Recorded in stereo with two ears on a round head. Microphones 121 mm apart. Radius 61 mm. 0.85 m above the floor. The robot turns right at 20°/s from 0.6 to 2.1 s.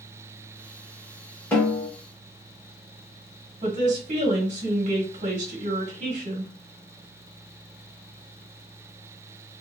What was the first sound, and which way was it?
A snare drum, 15° left (ahead or behind).